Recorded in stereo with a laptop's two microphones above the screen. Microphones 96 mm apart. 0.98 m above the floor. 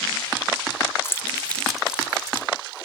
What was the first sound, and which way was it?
Keys jangling, 30° left (ahead or behind).